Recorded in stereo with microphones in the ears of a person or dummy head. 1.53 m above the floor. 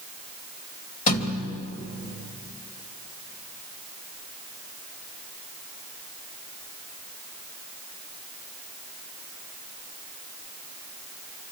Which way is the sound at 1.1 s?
45° left (ahead or behind).